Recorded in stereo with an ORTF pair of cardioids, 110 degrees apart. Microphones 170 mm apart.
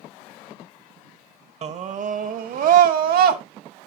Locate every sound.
1.6 s a scream: 40° right, 1.1 m; by 3.4 s 65° right, 1.9 m